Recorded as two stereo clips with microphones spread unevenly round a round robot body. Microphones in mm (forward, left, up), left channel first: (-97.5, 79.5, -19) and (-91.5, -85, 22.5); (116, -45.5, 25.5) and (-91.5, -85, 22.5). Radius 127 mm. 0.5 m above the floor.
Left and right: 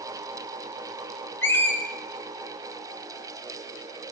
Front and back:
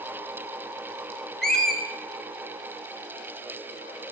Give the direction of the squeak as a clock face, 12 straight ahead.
9 o'clock.